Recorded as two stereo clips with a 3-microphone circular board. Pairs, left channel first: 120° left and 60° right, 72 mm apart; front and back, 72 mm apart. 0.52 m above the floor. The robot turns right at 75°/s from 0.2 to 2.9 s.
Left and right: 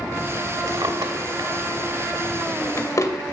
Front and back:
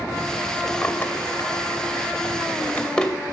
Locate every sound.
0.7 s a drawer: 90° right, 0.8 m; by 3.1 s 80° left, 0.8 m